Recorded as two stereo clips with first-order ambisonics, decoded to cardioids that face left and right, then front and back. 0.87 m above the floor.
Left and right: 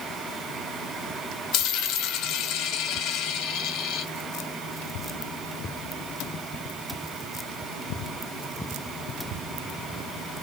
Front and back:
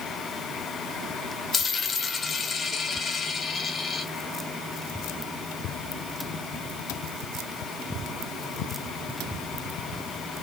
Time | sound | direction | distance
1.5 | a dropped coin | 65° left | 0.8 m